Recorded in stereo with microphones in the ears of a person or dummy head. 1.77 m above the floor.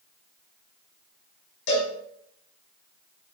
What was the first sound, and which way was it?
A cowbell, 55° left (ahead or behind).